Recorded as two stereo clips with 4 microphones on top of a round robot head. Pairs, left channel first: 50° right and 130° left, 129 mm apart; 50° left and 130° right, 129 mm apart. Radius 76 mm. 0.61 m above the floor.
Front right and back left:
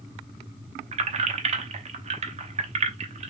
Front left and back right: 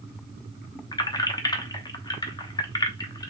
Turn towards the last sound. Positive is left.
turn(degrees=105)